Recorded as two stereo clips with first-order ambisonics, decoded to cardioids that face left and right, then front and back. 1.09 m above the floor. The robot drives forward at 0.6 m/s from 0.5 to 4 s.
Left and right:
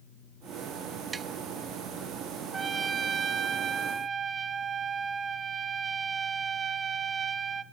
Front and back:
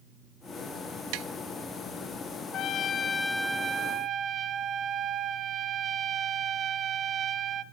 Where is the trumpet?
25° right, 0.8 m; by 7.6 s 145° right, 0.7 m.